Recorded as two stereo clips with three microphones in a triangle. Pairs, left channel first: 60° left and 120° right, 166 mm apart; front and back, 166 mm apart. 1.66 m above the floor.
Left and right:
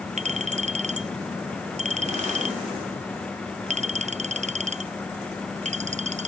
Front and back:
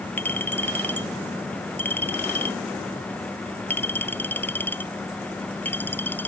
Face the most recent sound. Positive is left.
turn(degrees=-80)